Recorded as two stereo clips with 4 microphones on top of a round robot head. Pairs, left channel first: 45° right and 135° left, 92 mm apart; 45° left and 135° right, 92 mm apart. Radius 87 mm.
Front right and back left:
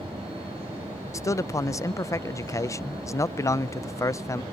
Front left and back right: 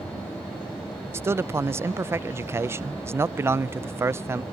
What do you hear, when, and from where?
1.1 s a man speaking: 85° right